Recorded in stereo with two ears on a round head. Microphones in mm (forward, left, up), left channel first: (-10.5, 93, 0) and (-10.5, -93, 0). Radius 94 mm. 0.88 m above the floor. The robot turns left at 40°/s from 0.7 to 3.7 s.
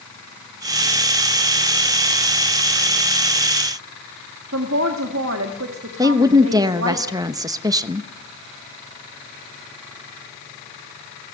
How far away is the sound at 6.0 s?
About 0.8 m.